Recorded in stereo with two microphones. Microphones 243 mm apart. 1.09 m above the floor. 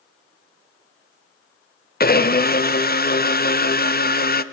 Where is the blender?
40° left (ahead or behind), 0.7 m.